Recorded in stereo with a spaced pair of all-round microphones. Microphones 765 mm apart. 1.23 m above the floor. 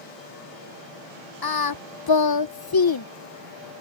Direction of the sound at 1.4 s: 35° left (ahead or behind).